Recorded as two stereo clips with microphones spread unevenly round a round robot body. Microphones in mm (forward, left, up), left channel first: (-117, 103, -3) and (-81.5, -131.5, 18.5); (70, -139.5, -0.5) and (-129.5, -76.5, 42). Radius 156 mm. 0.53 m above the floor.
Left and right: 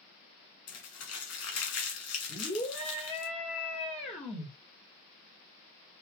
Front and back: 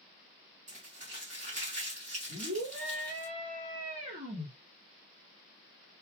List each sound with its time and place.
0.7 s crumpling: 95° left, 1.5 m
2.3 s a scream: 160° left, 1.2 m